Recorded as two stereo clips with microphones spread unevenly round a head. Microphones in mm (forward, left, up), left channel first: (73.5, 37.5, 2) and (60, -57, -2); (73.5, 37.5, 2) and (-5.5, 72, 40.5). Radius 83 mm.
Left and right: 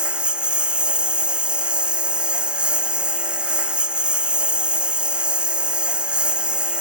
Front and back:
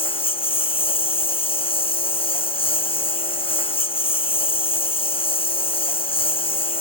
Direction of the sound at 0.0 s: 20° right.